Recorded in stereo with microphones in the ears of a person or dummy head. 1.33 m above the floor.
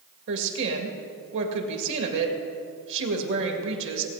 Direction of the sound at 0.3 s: 70° right (ahead or behind).